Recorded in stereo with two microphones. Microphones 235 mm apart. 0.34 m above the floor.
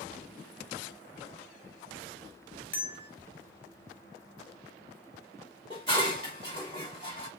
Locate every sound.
2.7 s a bell: 55° left (ahead or behind), 0.7 m
5.7 s dishes clattering: 20° left (ahead or behind), 1.2 m